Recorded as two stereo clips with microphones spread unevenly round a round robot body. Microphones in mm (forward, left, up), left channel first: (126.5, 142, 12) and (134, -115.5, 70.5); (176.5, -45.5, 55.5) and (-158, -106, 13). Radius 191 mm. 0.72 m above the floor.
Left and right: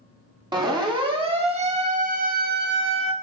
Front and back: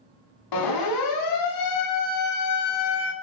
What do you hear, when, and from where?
0.5 s a siren: 15° right, 5 m; by 3.1 s 50° right, 1.8 m